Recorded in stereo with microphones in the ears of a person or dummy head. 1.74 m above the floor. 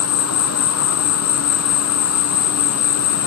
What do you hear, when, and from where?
0.0 s an insect: 75° left (ahead or behind), 1.0 m